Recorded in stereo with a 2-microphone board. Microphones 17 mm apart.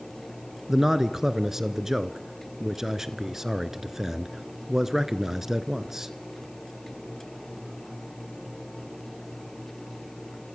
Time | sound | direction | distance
0.7 | a man speaking | 25° right (ahead or behind) | 1.1 m